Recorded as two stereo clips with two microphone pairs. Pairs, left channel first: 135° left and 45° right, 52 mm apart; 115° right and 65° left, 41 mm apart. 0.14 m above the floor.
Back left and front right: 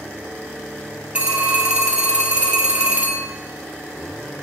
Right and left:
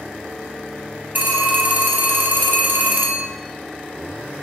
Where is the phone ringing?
20° left, 2 m.